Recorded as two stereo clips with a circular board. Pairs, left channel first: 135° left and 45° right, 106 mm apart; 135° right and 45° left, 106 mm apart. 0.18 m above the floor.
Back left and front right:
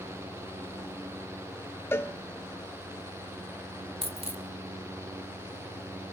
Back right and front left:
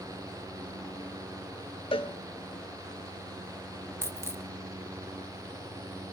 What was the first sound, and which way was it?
A cowbell, 160° right.